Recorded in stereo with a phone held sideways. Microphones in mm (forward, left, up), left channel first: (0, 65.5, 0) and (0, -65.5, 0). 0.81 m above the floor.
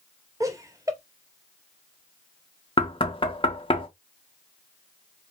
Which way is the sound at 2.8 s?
40° left (ahead or behind).